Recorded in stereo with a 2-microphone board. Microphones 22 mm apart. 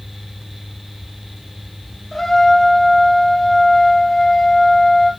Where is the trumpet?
15° left (ahead or behind), 2.5 m.